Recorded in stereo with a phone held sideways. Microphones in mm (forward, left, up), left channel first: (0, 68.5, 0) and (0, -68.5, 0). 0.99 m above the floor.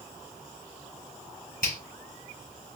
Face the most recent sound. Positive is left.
turn(degrees=75)  # may be behind; listen again after turning